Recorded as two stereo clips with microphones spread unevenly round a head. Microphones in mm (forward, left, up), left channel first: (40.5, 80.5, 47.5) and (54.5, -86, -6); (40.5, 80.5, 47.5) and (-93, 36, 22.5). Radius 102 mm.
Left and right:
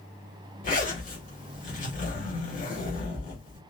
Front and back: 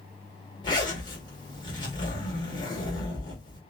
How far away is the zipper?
About 1.6 m.